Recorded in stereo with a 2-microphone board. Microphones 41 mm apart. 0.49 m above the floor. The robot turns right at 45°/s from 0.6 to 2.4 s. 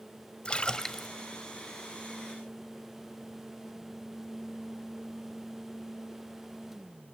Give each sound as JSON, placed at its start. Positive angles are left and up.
{"t": 0.5, "sound": "a splash", "side_deg": 25, "distance_m": 0.6}